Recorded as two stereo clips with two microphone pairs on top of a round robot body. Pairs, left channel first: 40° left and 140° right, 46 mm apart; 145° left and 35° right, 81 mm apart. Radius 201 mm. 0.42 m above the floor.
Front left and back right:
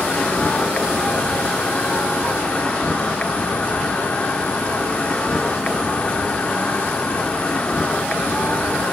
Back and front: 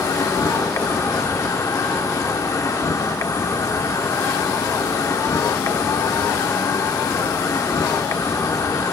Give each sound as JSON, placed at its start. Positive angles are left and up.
{"t": 0.0, "sound": "an insect", "azimuth_deg": 110, "distance_m": 1.4}